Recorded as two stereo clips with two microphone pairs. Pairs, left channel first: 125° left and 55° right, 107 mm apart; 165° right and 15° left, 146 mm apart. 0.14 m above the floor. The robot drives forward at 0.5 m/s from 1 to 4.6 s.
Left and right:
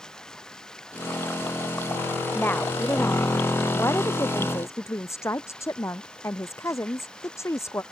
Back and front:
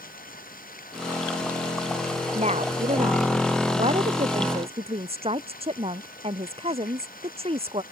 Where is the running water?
155° right.